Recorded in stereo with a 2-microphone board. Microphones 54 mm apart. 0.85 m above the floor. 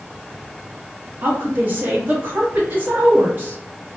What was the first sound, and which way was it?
A woman speaking, 35° right (ahead or behind).